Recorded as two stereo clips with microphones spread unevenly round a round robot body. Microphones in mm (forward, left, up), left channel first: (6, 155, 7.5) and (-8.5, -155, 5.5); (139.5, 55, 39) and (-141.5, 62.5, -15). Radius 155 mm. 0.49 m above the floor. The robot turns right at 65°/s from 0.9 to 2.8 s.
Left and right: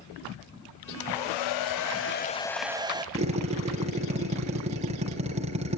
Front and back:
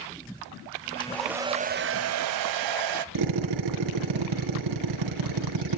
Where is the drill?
165° right, 3.5 m.